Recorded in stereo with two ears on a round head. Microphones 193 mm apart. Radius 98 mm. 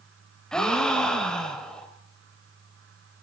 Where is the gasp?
5° left (ahead or behind), 3 m.